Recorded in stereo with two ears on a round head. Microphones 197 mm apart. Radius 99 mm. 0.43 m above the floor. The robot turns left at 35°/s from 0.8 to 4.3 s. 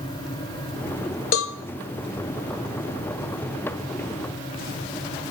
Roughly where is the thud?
No thud in this recording.